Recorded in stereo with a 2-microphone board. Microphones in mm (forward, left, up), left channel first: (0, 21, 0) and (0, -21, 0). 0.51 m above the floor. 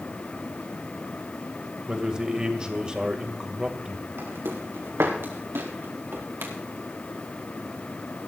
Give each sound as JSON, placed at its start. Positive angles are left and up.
{"t": 1.9, "sound": "a man speaking", "side_deg": -20, "distance_m": 1.9}
{"t": 4.2, "sound": "footsteps", "side_deg": -80, "distance_m": 3.5}